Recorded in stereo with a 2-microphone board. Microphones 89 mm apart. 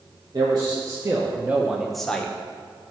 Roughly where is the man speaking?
Right.